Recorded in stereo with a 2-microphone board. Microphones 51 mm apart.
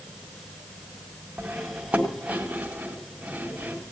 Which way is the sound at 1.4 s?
25° right (ahead or behind).